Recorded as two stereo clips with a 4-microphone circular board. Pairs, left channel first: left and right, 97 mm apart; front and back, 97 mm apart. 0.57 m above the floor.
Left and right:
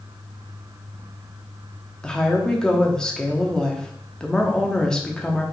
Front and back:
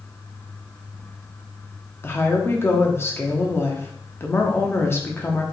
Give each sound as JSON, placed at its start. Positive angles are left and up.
{"t": 2.0, "sound": "a woman speaking", "azimuth_deg": 20, "distance_m": 0.7}